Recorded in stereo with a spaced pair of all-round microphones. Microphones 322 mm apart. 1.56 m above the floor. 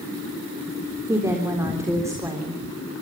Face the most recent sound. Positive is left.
turn(degrees=-10)  # may be behind; listen again after turning